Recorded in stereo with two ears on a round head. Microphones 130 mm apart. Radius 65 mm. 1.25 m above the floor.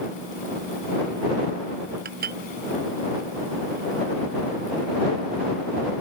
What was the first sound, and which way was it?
Dishes clattering, 70° right (ahead or behind).